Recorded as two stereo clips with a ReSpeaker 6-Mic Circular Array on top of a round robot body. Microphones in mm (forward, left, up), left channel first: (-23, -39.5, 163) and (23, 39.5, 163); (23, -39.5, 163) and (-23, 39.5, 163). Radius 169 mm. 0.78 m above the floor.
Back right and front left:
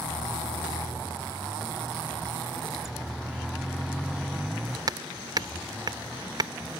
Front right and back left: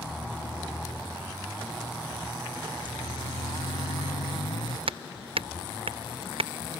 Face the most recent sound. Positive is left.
turn(degrees=105)